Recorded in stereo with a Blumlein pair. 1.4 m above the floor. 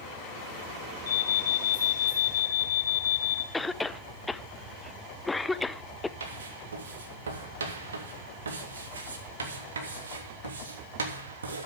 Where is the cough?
10° left, 0.8 m.